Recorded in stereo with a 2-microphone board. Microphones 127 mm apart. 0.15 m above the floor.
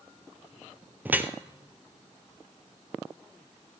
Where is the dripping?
15° right (ahead or behind), 0.5 m.